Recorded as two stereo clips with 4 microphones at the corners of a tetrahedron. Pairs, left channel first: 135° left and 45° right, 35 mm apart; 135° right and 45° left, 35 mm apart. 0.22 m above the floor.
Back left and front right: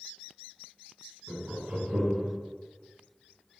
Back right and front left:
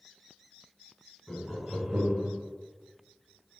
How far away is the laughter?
About 1.6 m.